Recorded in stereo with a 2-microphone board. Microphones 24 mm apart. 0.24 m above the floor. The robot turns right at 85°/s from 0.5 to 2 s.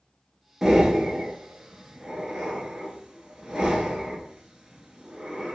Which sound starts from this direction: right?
Breathing, at 0.6 s.